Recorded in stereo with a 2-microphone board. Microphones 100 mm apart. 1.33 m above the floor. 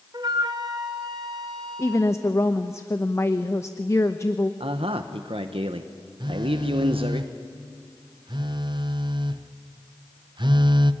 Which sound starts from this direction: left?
A woman speaking, at 1.8 s.